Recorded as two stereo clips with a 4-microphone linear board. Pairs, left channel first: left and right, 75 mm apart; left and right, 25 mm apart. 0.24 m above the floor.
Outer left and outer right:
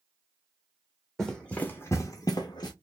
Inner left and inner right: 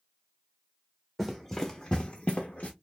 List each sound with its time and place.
1.2 s running footsteps: 5° left (ahead or behind), 0.8 m; by 2.7 s 70° left (ahead or behind), 0.9 m